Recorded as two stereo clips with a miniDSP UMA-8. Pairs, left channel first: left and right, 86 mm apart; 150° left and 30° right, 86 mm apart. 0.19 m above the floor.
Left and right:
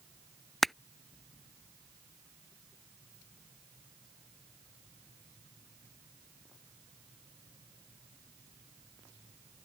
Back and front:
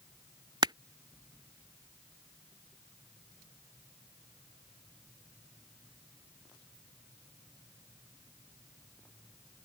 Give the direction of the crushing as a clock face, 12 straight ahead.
12 o'clock.